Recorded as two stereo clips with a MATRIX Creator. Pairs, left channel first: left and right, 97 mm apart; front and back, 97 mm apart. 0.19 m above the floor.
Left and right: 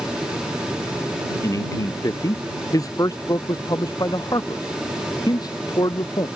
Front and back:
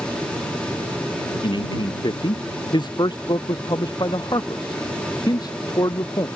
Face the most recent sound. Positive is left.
turn(degrees=45)